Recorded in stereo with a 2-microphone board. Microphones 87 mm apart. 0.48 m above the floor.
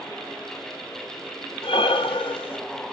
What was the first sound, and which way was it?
Breathing, 85° left.